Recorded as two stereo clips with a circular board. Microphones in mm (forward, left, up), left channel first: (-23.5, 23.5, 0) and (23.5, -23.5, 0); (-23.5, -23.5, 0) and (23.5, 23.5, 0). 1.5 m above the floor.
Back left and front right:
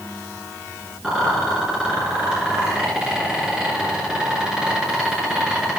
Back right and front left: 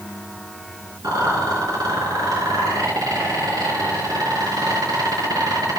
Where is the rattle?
35° left, 5 m.